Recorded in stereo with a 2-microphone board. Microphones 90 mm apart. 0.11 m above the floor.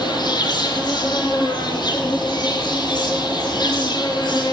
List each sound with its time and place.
0.0 s an insect: 50° left (ahead or behind), 1.6 m